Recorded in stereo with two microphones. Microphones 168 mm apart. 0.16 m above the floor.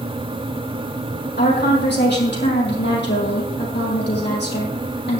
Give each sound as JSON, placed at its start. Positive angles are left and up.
{"t": 1.4, "sound": "a woman speaking", "side_deg": 80, "distance_m": 5.0}